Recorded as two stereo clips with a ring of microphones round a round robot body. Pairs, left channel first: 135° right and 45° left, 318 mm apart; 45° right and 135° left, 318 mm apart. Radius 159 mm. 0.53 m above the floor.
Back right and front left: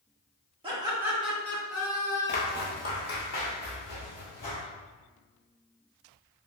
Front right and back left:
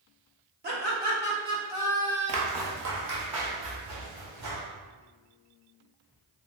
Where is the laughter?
110° left, 1.3 m; by 2.6 s 125° right, 1.3 m.